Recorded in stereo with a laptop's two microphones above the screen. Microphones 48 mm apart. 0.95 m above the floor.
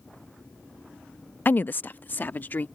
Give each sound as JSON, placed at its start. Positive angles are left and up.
{"t": 1.4, "sound": "a woman speaking", "side_deg": 40}